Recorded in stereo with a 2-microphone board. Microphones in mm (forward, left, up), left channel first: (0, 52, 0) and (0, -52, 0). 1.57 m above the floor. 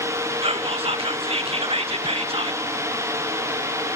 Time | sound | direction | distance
0.4 | whispering | 65° right (ahead or behind) | 0.5 m